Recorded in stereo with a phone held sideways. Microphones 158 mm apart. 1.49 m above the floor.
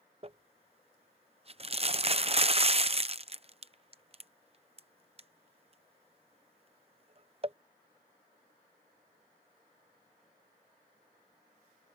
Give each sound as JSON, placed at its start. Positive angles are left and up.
{"t": 0.2, "sound": "crumpling", "side_deg": -40}